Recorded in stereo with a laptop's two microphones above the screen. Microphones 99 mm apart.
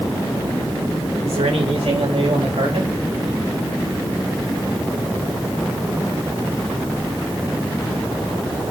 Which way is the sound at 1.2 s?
85° right.